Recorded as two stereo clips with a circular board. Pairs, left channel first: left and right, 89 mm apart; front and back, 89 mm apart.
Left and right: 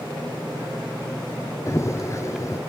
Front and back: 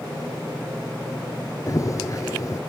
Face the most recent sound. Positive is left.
turn(degrees=40)